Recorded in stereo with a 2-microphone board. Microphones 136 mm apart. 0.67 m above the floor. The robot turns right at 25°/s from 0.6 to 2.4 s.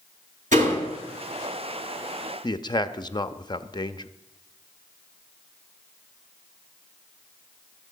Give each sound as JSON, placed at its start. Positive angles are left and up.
{"t": 0.5, "sound": "a door slam", "side_deg": -70, "distance_m": 8.5}
{"t": 2.4, "sound": "a man speaking", "side_deg": 30, "distance_m": 0.7}